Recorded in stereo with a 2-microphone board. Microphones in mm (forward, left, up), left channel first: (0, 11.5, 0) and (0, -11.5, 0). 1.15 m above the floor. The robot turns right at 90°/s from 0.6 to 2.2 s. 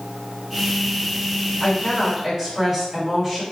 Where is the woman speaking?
145° left, 1.5 m; by 3.4 s 160° right, 1.5 m.